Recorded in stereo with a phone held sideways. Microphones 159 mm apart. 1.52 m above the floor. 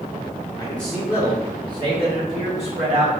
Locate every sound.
0.6 s a man speaking: 20° left (ahead or behind), 0.8 m; by 3.1 s 50° right (ahead or behind), 2.5 m